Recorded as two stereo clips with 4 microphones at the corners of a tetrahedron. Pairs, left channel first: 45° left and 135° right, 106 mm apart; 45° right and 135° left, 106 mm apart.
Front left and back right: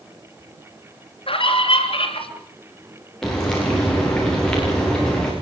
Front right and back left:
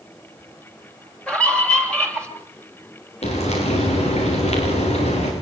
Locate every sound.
1.3 s a scream: 35° left, 3 m
3.2 s frying: 40° right, 9 m